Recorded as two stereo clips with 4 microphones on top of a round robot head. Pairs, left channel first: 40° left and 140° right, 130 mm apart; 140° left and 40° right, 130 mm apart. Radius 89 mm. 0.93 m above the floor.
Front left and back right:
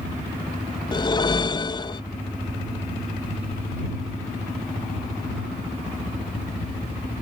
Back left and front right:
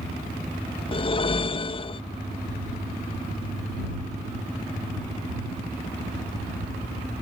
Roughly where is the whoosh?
Left.